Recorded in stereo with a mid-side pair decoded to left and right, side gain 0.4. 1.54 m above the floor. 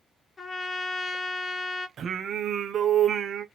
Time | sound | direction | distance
0.4 | a trumpet | 35° left | 1.3 m
2.0 | singing | 60° right | 0.7 m